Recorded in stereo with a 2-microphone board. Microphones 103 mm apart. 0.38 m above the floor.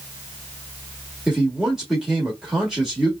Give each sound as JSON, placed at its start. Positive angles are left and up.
{"t": 1.3, "sound": "a man speaking", "side_deg": -5, "distance_m": 1.5}